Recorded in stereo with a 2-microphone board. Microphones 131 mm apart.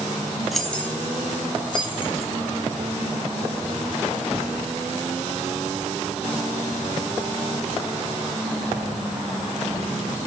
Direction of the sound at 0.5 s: Centre (ahead or behind).